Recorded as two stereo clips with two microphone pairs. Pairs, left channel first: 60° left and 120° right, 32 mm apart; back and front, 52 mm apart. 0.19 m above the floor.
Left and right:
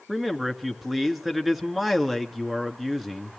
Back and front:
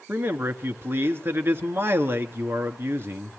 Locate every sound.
0.1 s a man speaking: 35° right, 2 m